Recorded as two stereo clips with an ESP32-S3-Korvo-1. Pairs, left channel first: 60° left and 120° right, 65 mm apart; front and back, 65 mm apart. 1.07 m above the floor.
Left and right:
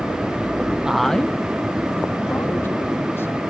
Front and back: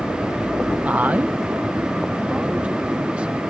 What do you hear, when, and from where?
0.8 s a man speaking: 175° right; by 3.4 s 110° left